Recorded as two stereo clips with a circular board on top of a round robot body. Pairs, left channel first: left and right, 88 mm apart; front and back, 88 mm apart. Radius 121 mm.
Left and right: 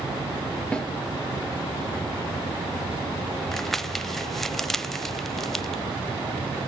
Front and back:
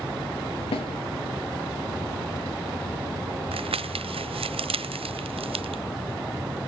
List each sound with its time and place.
0.7 s a snare drum: 10° left, 6 m
3.5 s crumpling: 175° left, 0.9 m